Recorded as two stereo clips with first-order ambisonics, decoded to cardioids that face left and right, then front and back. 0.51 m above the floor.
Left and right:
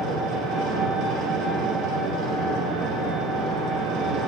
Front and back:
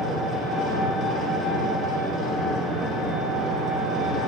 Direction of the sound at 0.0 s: 125° right.